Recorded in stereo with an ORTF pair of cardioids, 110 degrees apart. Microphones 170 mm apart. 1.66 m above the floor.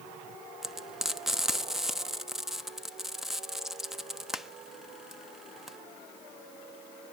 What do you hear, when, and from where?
0.6 s frying: straight ahead, 1.0 m